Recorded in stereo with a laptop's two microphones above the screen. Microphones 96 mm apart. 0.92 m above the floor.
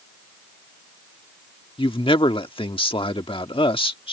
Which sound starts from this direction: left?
A man speaking, at 1.8 s.